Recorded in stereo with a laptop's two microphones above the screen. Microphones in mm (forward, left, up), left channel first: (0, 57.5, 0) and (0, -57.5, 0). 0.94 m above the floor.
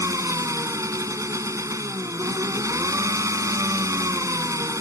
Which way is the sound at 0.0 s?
25° right (ahead or behind).